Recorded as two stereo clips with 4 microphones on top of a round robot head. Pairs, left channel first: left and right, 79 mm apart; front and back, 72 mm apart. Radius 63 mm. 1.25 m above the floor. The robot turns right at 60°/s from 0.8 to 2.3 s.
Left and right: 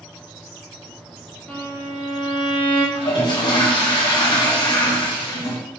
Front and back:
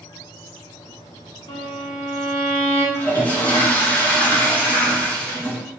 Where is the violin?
15° left, 2.5 m; by 2.9 s 65° left, 2.5 m.